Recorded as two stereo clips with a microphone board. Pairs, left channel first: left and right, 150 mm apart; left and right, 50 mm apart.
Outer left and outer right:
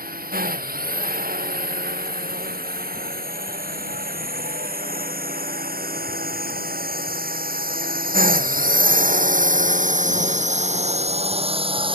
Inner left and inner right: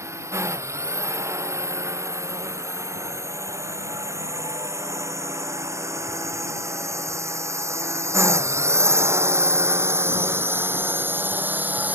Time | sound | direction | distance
0.0 | a drone | 75° right (ahead or behind) | ?